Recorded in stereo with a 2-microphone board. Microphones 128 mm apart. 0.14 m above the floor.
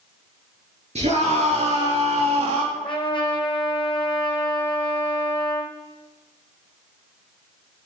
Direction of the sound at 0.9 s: 55° right (ahead or behind).